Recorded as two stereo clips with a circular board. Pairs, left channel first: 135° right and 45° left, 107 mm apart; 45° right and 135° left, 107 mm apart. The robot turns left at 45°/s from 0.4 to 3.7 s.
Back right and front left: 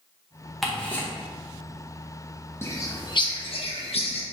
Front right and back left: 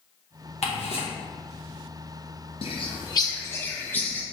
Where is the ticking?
45° right, 0.9 m; by 1.1 s 70° right, 0.9 m.